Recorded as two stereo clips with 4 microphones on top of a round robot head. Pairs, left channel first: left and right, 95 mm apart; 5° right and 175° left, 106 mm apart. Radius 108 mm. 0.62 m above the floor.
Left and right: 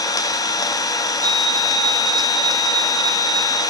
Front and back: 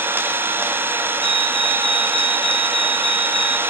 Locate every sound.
0.0 s an engine running: 115° left, 1.1 m
1.2 s a fire alarm: 160° left, 3 m